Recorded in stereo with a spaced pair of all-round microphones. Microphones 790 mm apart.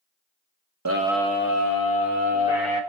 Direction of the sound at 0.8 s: 25° right (ahead or behind).